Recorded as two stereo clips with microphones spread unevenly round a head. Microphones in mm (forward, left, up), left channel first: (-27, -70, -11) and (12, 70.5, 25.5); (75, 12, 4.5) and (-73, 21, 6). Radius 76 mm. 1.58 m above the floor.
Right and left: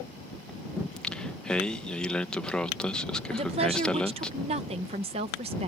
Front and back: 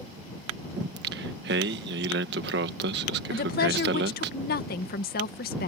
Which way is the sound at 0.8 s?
165° left.